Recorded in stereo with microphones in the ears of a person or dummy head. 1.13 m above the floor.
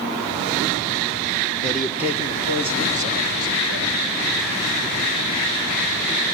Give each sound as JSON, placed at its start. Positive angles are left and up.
{"t": 1.6, "sound": "a man speaking", "side_deg": 5, "distance_m": 0.8}